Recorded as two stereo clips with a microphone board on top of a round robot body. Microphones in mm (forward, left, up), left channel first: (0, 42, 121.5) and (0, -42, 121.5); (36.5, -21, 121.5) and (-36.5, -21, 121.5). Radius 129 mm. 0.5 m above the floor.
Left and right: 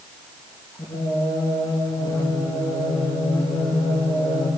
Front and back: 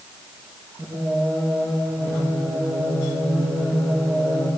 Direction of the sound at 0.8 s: 130° left.